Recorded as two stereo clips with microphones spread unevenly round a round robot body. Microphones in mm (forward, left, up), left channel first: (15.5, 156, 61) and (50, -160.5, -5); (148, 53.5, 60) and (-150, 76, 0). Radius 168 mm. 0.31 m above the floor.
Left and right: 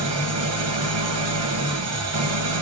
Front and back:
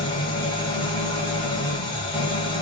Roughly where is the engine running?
Right.